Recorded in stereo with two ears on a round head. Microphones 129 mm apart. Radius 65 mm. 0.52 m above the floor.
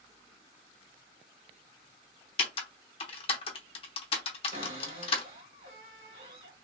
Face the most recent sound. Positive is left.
turn(degrees=-45)  # may be behind; listen again after turning